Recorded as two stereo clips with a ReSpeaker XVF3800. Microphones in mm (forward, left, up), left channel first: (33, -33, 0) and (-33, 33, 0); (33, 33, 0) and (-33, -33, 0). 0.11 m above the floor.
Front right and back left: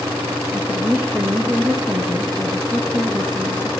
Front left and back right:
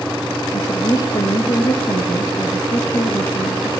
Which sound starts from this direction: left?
A woman speaking, at 0.5 s.